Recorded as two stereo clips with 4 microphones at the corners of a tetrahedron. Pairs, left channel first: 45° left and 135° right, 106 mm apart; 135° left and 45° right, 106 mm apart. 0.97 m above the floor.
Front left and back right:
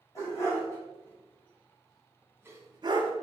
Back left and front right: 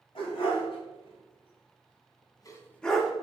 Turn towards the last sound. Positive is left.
turn(degrees=-125)